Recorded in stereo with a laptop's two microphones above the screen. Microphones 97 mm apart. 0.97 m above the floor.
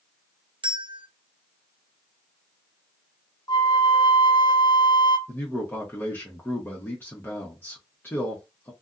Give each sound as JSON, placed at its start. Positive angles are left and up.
{"t": 0.6, "sound": "a bell", "side_deg": -65, "distance_m": 0.5}
{"t": 3.5, "sound": "a flute", "side_deg": 50, "distance_m": 0.7}
{"t": 5.3, "sound": "a man speaking", "side_deg": 25, "distance_m": 1.0}